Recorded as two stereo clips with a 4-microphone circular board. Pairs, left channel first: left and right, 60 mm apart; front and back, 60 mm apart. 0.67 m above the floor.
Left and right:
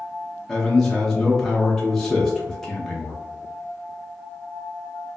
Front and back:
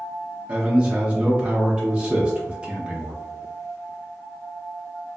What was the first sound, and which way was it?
A man speaking, 160° left.